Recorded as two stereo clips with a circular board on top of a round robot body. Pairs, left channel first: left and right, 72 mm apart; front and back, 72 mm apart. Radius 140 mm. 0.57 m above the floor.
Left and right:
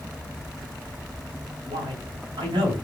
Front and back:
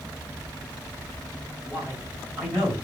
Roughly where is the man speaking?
Right.